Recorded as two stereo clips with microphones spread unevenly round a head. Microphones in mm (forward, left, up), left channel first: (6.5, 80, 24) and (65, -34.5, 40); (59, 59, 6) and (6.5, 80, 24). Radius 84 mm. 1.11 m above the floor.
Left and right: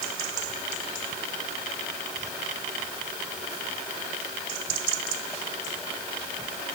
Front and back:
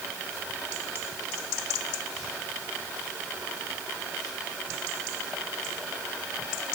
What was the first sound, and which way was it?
Only background noise.